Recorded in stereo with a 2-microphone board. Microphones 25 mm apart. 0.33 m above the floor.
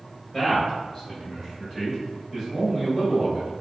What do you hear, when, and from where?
0.3 s a man speaking: 10° left (ahead or behind), 1.5 m; by 3.5 s centre (ahead or behind), 1.4 m